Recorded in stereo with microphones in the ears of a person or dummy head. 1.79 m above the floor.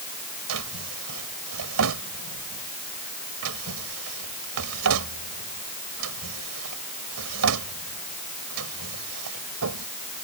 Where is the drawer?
80° right.